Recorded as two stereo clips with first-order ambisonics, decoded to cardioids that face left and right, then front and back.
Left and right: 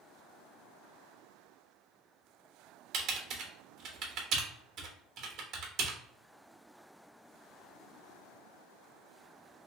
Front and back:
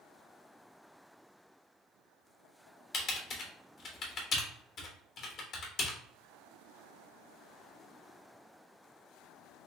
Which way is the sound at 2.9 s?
45° right.